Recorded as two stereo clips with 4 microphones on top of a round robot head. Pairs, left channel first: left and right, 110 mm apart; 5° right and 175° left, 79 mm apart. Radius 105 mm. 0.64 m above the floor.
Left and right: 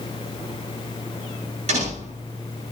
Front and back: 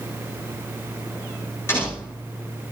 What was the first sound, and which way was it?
A door slam, 70° right.